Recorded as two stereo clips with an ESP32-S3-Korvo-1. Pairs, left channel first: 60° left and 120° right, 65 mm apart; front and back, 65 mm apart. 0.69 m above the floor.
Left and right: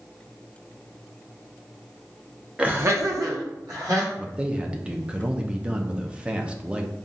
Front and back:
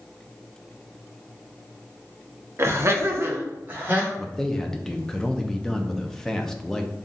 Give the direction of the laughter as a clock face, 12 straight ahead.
6 o'clock.